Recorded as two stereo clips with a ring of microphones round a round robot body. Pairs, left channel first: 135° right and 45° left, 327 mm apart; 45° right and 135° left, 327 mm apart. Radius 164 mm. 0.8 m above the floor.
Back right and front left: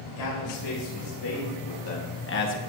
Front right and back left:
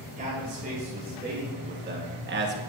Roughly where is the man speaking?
Behind.